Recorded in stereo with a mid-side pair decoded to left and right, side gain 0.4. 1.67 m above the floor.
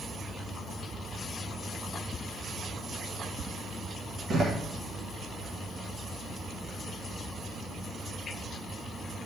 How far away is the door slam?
About 2 m.